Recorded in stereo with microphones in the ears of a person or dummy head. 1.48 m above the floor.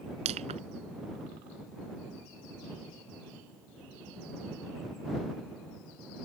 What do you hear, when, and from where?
0.2 s crushing: 35° right (ahead or behind)